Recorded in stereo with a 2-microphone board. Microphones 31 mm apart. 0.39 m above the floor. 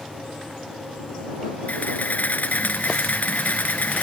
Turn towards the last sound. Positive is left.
turn(degrees=70)  # may be behind; listen again after turning